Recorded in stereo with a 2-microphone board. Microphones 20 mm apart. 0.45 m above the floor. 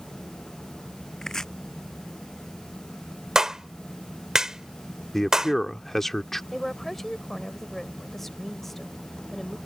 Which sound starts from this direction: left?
Chopping, at 1.2 s.